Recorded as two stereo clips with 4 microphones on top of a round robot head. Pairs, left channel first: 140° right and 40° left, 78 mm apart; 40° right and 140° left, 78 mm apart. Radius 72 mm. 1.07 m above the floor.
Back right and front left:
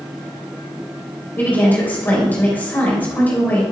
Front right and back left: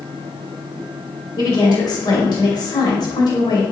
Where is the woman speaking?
75° right, 4.5 m.